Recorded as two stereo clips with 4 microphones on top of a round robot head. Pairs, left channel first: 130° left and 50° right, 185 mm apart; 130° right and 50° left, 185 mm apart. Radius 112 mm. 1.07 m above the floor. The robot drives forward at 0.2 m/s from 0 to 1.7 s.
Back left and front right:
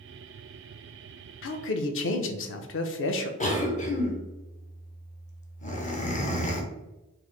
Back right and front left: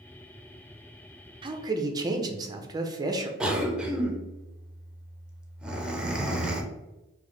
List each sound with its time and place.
1.4 s a man speaking: 120° left, 0.5 m; by 3.3 s 125° left, 0.5 m
3.4 s a cough: 135° left, 0.9 m